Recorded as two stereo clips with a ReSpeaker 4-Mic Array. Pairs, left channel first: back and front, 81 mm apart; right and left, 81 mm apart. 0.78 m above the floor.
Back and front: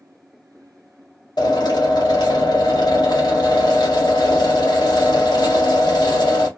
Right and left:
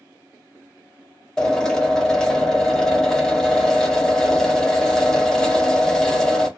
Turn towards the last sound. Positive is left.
turn(degrees=-170)